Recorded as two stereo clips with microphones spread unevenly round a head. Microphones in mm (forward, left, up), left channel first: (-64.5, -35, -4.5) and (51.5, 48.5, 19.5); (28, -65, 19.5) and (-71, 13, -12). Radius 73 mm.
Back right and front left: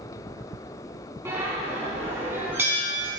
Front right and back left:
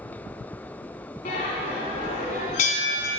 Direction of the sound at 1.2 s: 35° right.